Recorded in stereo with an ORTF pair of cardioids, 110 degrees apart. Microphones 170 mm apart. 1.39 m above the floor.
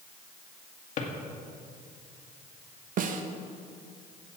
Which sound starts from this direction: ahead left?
A drawer, at 1.0 s.